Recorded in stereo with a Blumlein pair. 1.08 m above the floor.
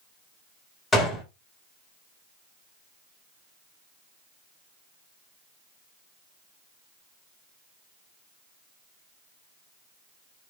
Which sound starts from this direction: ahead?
A gunshot, at 0.9 s.